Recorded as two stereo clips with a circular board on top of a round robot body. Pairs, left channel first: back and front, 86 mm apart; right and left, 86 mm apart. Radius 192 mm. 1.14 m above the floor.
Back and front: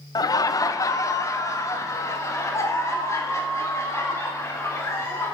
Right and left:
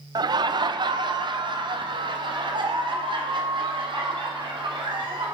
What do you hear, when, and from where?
0.1 s laughter: 135° left, 0.5 m; by 5.3 s 120° left, 3.5 m